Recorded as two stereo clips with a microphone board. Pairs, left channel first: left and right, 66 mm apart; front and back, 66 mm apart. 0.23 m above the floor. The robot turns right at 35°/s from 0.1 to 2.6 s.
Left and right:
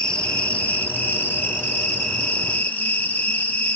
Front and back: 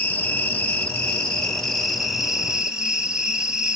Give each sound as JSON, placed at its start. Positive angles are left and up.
{"t": 0.0, "sound": "an insect", "azimuth_deg": 30, "distance_m": 1.1}